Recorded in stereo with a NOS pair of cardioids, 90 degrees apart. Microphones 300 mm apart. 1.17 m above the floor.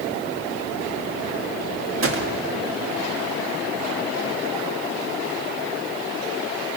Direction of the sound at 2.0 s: 45° right.